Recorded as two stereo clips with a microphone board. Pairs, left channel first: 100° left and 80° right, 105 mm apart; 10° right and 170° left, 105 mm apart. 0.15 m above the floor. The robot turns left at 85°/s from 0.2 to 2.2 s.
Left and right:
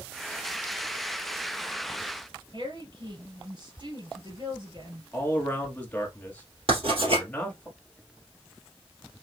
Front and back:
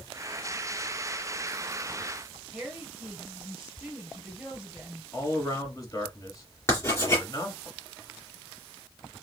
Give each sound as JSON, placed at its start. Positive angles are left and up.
{"t": 2.5, "sound": "a woman speaking", "azimuth_deg": -105, "distance_m": 3.0}
{"t": 5.1, "sound": "a man speaking", "azimuth_deg": 30, "distance_m": 1.7}
{"t": 6.7, "sound": "writing", "azimuth_deg": -75, "distance_m": 2.5}